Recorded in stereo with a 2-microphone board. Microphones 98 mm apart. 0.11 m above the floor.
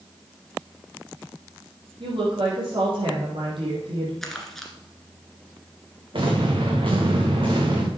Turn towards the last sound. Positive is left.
turn(degrees=-60)  # may be behind; listen again after turning